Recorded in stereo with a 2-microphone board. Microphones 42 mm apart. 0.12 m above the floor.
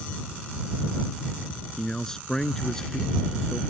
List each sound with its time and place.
1.8 s a man speaking: 10° left (ahead or behind)